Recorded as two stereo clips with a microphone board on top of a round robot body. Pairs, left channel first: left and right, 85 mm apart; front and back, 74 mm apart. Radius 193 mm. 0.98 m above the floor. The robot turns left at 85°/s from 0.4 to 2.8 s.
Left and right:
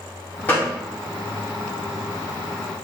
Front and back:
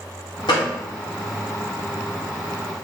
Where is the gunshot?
25° left, 0.6 m; by 0.7 s 5° left, 0.6 m.